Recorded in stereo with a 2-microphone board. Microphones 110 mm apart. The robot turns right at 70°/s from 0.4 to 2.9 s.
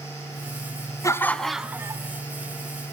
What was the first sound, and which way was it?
Laughter, 150° left.